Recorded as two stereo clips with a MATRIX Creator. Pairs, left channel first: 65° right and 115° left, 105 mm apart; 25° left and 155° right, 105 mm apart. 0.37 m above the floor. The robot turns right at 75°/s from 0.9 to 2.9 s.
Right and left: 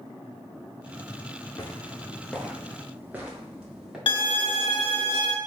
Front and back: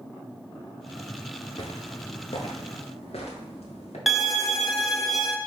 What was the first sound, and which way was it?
Footsteps, 20° right.